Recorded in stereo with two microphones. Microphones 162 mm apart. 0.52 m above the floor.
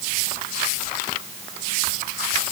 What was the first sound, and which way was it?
Only background noise.